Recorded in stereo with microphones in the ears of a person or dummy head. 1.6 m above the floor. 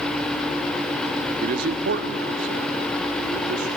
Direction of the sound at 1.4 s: 55° right (ahead or behind).